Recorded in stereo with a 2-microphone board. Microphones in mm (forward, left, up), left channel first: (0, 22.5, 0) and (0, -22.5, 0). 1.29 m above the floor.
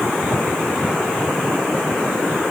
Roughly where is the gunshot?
I don't hear a gunshot.